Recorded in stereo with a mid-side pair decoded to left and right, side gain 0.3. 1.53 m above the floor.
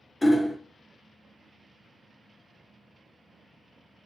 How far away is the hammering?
About 0.6 m.